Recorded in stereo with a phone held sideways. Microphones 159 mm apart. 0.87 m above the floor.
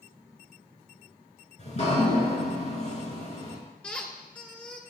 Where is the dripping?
45° left (ahead or behind), 4 m.